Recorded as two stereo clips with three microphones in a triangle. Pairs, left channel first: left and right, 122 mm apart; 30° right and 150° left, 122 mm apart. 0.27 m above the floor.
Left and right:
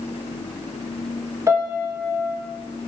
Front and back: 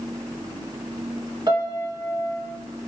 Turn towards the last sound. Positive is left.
turn(degrees=-155)